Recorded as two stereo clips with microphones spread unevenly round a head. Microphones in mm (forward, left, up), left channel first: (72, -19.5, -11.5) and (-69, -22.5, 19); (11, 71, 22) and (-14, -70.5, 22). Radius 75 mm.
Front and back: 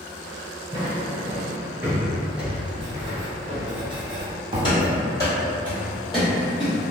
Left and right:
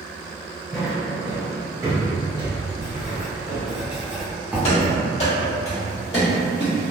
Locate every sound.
0.7 s footsteps: 170° left, 1.5 m; by 3.7 s 100° right, 1.8 m
2.8 s writing: 175° right, 0.8 m
4.6 s running footsteps: 60° left, 1.7 m; by 6.7 s 125° left, 1.7 m